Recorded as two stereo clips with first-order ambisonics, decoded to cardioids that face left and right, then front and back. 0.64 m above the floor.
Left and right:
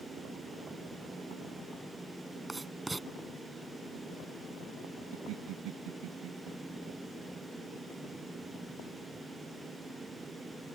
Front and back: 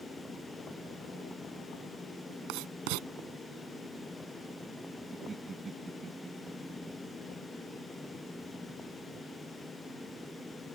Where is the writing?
170° right.